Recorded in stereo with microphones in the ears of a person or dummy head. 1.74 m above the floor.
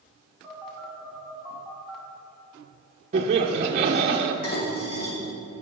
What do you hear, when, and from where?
0.4 s a phone buzzing: centre (ahead or behind), 2.5 m
3.1 s laughter: 35° right (ahead or behind), 0.7 m
4.4 s dishes clattering: 50° left (ahead or behind), 3 m